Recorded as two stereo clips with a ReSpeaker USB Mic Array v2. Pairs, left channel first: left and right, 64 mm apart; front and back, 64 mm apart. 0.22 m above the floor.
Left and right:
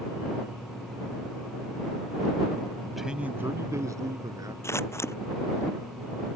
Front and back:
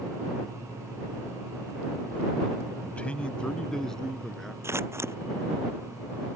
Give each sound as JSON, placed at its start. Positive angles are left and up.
{"t": 2.8, "sound": "a man speaking", "azimuth_deg": 25}
{"t": 4.6, "sound": "scissors", "azimuth_deg": 135}